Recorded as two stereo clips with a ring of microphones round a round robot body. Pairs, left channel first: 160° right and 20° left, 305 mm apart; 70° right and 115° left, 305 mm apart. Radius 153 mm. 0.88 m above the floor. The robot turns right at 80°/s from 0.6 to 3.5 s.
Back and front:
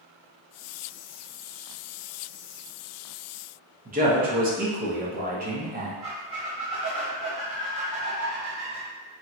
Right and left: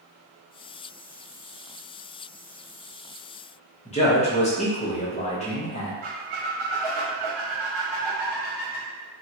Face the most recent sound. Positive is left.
turn(degrees=90)